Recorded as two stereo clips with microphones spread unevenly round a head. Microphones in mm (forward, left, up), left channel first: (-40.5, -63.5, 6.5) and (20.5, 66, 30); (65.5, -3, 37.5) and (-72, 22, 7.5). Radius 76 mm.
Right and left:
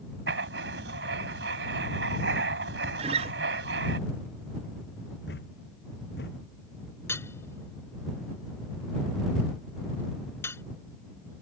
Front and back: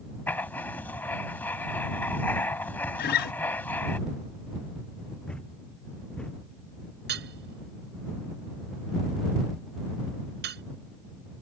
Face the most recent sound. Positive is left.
turn(degrees=170)